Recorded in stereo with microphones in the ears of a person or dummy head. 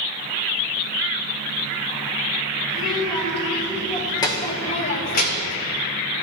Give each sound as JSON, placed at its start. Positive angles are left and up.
{"t": 2.7, "sound": "a child speaking", "side_deg": 0, "distance_m": 1.8}